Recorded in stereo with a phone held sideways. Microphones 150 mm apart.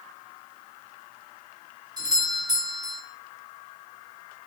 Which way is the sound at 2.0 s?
25° right (ahead or behind).